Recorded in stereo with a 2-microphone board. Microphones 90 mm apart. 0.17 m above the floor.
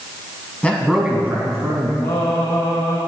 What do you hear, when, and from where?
0.6 s a man speaking: 15° left (ahead or behind), 1.0 m; by 1.9 s 45° right (ahead or behind), 1.7 m
2.0 s singing: 60° left (ahead or behind), 2 m